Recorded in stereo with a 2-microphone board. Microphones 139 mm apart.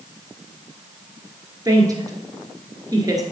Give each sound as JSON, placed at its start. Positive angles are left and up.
{"t": 1.6, "sound": "a woman speaking", "side_deg": -30, "distance_m": 2.0}